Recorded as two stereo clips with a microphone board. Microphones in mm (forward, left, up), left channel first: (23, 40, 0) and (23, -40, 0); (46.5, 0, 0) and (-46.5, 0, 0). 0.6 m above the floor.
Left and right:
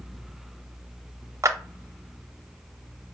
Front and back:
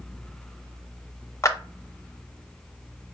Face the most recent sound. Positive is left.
turn(degrees=-50)